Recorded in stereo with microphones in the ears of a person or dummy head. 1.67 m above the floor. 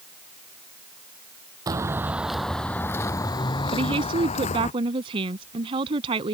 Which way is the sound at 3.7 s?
30° right (ahead or behind).